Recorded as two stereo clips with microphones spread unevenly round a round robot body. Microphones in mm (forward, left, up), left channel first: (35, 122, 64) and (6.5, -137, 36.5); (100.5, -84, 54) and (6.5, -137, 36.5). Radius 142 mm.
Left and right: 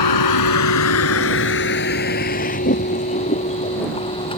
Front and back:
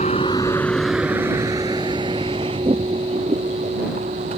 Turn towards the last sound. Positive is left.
turn(degrees=155)